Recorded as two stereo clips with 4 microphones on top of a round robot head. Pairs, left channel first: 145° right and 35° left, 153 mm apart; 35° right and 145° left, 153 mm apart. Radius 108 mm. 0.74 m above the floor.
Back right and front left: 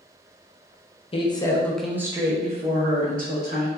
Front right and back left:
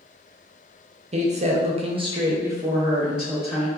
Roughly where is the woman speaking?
Behind.